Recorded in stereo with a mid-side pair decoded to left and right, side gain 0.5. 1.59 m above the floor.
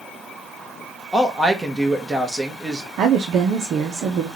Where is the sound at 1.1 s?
20° right, 1.5 m.